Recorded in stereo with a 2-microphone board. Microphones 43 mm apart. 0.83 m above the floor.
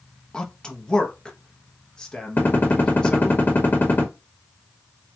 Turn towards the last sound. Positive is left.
turn(degrees=45)  # may be behind; listen again after turning